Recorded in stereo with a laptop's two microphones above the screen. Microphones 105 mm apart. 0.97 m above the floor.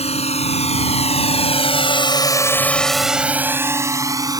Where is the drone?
85° left; by 4.4 s 35° right (ahead or behind).